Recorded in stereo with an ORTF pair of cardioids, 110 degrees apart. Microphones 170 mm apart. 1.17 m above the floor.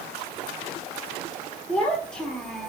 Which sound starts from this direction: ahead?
A child speaking, at 1.7 s.